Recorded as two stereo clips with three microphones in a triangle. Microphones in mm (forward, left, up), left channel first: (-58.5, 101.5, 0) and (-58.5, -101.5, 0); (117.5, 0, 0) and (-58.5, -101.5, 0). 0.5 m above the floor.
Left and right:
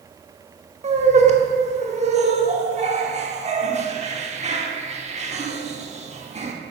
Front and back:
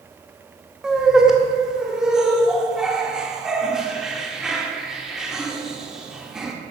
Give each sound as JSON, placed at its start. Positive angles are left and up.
{"t": 0.8, "sound": "laughter", "azimuth_deg": -65, "distance_m": 1.0}